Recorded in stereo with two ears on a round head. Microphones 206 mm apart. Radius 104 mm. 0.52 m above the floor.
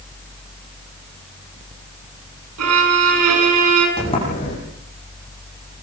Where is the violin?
80° right, 6.5 m.